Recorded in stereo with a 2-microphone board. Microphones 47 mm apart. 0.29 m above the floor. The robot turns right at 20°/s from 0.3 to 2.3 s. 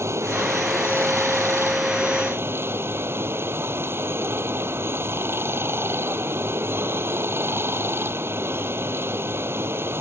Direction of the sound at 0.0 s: 100° right.